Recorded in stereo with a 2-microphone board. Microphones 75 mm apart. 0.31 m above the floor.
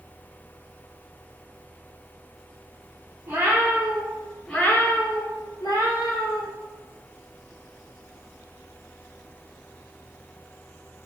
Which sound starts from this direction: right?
A cat meowing, at 3.3 s.